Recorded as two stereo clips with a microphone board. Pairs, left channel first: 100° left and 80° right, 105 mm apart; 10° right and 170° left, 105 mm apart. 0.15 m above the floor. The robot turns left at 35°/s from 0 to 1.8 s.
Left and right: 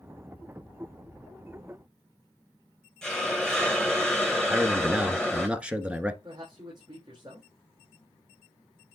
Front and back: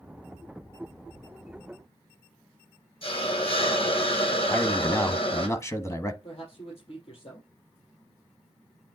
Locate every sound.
3.0 s a hiss: 15° left, 1.5 m
4.5 s a man speaking: 15° right, 1.1 m
6.2 s a man speaking: 30° right, 4.5 m